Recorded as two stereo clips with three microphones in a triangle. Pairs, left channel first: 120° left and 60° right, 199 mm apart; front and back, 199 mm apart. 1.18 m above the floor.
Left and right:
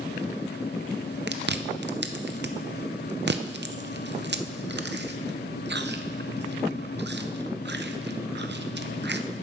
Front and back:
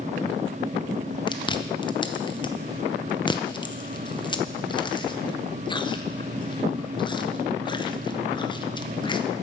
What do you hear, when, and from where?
1.3 s chewing: 60° right, 0.6 m